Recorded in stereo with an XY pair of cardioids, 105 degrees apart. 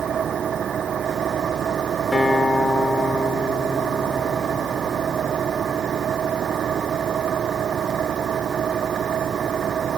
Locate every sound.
0.0 s an engine running: 55° right
2.1 s a guitar: 15° left